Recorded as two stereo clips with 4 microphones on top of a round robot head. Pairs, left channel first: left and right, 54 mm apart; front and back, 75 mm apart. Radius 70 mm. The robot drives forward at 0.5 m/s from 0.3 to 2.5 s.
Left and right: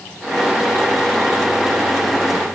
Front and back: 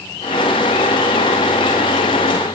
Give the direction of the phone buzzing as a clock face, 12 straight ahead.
No phone buzzing in this recording.